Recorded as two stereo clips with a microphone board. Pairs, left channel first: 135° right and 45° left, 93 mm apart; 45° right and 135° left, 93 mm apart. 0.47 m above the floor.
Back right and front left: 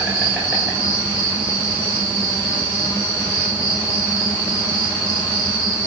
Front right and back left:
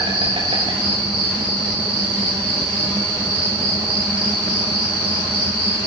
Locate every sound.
0.0 s an insect: 120° left, 8 m